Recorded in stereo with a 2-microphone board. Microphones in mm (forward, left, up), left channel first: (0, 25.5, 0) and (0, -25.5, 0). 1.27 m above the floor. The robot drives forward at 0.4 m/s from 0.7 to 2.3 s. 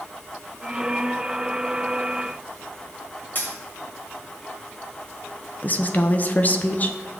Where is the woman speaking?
35° left (ahead or behind), 0.6 m.